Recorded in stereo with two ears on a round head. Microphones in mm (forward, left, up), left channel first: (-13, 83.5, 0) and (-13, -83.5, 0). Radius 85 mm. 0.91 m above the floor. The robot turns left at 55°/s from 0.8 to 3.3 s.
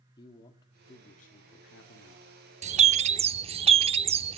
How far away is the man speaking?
About 2 m.